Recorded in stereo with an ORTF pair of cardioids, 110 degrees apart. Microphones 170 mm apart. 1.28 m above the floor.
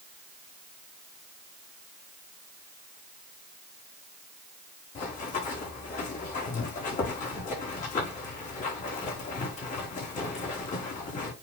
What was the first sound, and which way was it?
Running footsteps, 50° left.